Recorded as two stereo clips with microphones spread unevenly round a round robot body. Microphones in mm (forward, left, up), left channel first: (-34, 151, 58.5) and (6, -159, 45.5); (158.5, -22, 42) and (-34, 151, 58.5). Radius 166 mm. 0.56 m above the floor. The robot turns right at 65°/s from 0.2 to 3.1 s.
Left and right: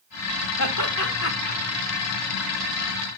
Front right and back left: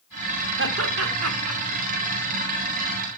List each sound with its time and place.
0.6 s laughter: 100° left, 2.0 m; by 1.6 s 160° left, 2.0 m